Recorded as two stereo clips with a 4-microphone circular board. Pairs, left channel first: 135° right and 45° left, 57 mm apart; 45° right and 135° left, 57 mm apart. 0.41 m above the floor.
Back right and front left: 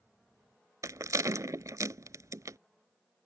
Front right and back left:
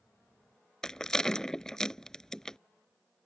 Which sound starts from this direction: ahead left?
A rattle, at 0.8 s.